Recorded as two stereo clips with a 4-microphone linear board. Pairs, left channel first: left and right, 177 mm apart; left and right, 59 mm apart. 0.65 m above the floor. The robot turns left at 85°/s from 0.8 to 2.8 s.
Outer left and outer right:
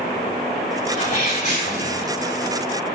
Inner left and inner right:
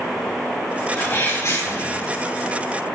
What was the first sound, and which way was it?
A sneeze, 130° left.